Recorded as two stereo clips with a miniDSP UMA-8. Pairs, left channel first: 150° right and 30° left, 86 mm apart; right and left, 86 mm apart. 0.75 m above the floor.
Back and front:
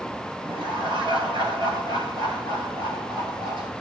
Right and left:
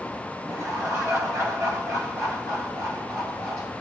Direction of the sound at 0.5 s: 40° left.